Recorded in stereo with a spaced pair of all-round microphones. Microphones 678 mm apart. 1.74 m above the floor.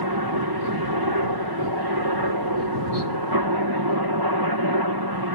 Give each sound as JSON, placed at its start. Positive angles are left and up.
{"t": 0.0, "sound": "a helicopter", "side_deg": -35}